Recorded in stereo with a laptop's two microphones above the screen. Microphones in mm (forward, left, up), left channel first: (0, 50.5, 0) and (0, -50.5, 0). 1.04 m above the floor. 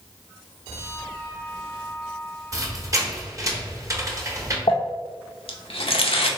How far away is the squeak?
About 0.9 m.